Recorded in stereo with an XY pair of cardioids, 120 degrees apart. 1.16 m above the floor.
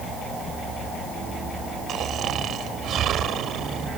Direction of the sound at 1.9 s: 55° right.